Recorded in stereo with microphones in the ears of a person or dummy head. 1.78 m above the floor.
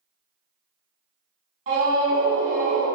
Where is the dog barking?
No dog barking in this recording.